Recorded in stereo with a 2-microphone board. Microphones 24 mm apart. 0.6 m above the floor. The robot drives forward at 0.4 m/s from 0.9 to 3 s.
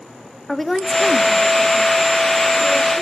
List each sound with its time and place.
0.5 s a woman speaking: 5° left (ahead or behind), 0.7 m; by 3.0 s centre (ahead or behind), 1.4 m